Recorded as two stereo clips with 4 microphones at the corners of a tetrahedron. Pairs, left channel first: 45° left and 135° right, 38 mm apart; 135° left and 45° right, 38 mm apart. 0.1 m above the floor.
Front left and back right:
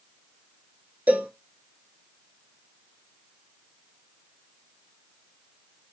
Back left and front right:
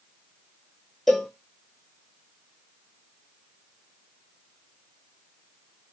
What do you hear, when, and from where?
1.1 s a cowbell: 145° right, 0.6 m